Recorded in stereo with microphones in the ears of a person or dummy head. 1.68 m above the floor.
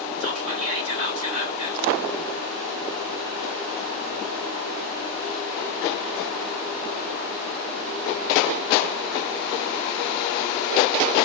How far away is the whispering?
About 2 m.